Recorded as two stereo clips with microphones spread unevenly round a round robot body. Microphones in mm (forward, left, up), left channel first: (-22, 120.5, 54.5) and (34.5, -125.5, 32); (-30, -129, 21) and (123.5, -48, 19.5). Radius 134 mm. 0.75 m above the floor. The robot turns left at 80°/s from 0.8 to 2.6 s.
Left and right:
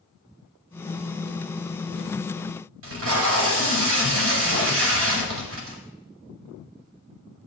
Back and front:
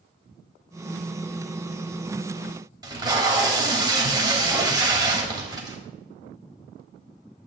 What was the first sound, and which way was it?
Tape being pulled, 40° right.